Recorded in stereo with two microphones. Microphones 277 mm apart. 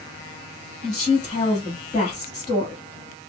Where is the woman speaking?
25° left (ahead or behind), 1.9 m.